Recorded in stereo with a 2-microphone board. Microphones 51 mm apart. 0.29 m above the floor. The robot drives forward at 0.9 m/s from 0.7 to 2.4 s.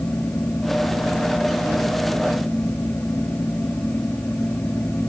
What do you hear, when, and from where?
Only background noise.